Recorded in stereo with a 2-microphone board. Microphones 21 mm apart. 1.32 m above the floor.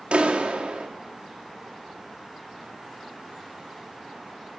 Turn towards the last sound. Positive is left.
turn(degrees=-60)  # may be behind; listen again after turning